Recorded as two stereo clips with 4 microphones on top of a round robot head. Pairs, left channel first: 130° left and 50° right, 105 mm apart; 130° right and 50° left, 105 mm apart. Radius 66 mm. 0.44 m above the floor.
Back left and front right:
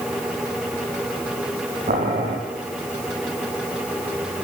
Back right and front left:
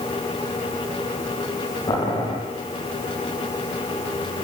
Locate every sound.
1.9 s boiling: 70° right, 8 m